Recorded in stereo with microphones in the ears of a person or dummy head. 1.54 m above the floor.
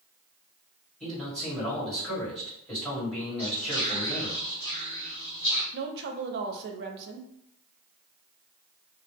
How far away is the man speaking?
About 1.5 m.